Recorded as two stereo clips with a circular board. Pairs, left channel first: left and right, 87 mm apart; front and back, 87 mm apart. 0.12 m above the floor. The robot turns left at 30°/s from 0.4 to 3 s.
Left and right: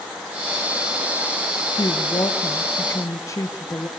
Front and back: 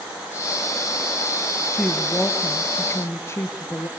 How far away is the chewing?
No chewing in this recording.